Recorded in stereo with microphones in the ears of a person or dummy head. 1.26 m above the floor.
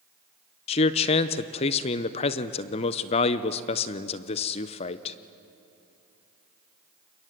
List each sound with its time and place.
0.7 s a man speaking: 30° left (ahead or behind), 0.6 m